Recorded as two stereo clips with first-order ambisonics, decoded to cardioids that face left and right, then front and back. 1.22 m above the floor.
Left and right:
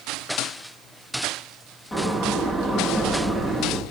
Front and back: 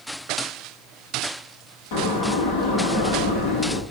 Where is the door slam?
10° left, 9 m.